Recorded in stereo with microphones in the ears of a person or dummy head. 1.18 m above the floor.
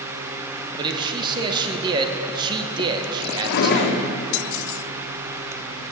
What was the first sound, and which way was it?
A man speaking, 25° right (ahead or behind).